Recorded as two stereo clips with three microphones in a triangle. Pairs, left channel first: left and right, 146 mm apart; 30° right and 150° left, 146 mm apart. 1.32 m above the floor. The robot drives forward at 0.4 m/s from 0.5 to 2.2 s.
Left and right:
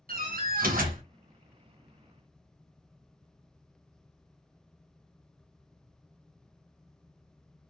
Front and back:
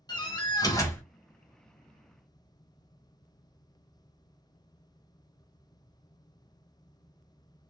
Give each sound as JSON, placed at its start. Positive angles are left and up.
{"t": 0.1, "sound": "a door slam", "azimuth_deg": -90, "distance_m": 1.0}